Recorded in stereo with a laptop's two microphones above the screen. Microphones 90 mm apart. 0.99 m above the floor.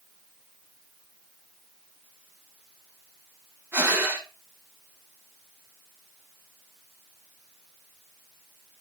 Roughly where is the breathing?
Right.